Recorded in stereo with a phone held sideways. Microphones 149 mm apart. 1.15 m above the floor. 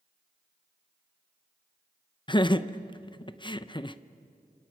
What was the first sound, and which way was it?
Laughter, 30° left (ahead or behind).